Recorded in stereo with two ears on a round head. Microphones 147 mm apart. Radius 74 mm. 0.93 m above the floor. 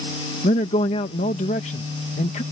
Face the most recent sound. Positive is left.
turn(degrees=40)  # may be behind; listen again after turning